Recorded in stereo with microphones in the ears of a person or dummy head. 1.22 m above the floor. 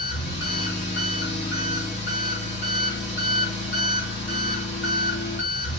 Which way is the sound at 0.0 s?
40° left (ahead or behind).